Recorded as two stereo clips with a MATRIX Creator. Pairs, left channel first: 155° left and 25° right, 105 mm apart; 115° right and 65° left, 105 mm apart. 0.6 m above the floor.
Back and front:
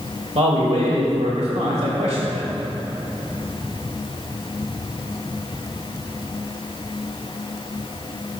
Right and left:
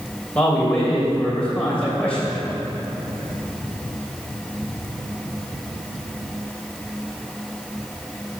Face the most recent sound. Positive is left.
turn(degrees=-35)